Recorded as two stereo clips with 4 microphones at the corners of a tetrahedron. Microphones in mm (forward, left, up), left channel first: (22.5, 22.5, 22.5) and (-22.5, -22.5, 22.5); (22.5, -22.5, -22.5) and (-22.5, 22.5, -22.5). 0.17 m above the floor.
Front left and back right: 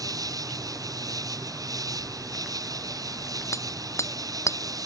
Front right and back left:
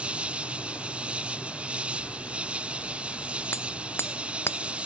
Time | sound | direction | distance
0.0 | an insect | 150° right | ?
3.5 | hammering | 10° left | ?